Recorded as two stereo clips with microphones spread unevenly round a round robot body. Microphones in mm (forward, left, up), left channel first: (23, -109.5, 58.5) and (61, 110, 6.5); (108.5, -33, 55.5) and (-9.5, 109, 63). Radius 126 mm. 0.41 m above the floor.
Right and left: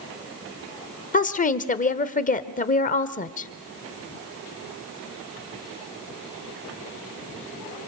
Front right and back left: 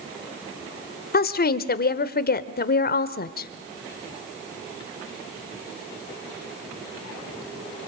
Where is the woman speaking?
40° right, 1.3 m.